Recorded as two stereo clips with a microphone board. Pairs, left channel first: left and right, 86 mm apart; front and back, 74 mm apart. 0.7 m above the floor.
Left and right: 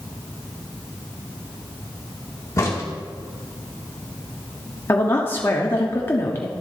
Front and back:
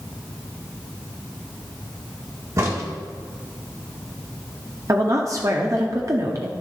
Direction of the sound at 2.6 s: 140° left.